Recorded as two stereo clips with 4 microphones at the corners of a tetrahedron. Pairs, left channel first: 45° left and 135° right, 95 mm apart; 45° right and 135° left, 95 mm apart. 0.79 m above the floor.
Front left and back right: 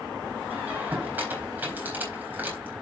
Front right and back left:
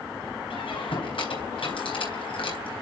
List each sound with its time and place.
0.5 s a squeak: 65° right, 4 m